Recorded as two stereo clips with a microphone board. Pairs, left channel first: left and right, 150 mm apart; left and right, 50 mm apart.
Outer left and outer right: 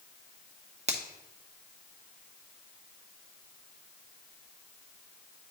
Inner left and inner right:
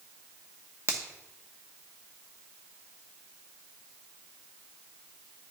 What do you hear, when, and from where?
0.9 s a finger snap: 45° right (ahead or behind), 1.0 m